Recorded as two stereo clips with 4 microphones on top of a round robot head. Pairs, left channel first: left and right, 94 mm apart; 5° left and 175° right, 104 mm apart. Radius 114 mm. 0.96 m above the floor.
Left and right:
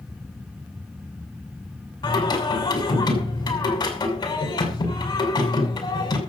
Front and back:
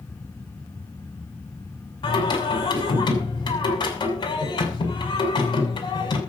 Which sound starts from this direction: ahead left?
Singing, at 2.0 s.